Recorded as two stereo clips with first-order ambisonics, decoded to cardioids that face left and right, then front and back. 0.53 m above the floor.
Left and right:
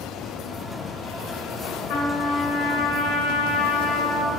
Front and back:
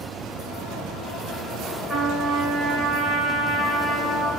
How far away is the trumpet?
About 0.7 m.